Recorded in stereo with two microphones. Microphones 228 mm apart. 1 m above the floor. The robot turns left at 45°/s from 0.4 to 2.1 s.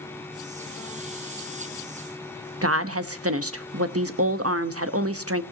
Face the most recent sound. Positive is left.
turn(degrees=-80)